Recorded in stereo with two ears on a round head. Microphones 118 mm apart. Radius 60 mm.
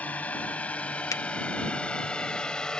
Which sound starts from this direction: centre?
A drone, at 0.0 s.